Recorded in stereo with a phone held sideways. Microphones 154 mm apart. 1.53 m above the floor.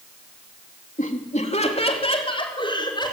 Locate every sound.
1.0 s laughter: 55° left (ahead or behind), 3 m; by 3.1 s 30° left (ahead or behind), 5.5 m